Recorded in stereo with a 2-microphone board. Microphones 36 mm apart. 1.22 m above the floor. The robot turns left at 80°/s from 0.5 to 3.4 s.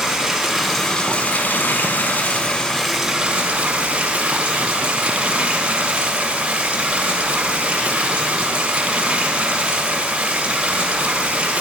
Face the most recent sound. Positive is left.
turn(degrees=-35)